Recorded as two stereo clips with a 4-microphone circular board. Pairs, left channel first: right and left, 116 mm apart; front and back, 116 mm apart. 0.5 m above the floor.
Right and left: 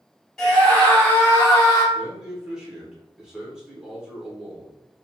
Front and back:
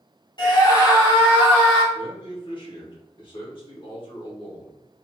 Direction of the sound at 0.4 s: 10° right.